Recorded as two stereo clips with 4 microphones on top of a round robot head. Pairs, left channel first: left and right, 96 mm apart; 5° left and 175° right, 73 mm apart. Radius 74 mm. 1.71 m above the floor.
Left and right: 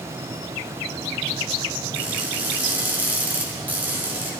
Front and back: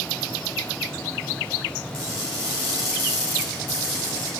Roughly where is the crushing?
Ahead.